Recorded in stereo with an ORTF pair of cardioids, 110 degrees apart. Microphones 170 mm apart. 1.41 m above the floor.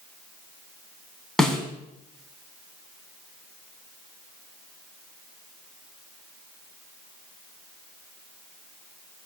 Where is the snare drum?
5° left, 4.5 m.